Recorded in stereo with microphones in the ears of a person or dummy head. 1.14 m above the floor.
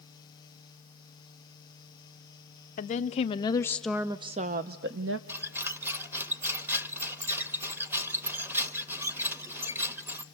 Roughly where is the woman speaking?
Left.